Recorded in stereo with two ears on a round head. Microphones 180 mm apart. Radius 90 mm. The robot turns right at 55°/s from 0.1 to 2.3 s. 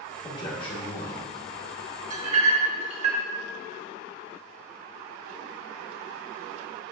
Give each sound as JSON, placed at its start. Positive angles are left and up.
{"t": 0.2, "sound": "a man speaking", "azimuth_deg": 35, "distance_m": 0.9}
{"t": 2.1, "sound": "a clink", "side_deg": -40, "distance_m": 0.8}